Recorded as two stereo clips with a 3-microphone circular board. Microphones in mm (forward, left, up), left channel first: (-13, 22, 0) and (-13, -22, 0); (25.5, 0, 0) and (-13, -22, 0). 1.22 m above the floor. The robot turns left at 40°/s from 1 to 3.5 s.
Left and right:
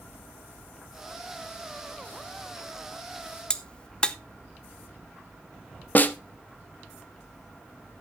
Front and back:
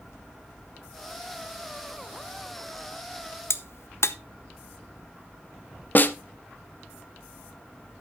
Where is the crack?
25° left, 0.7 m.